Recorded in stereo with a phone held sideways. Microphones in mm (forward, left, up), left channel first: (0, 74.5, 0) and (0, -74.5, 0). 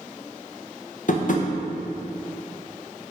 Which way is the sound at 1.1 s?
60° left (ahead or behind).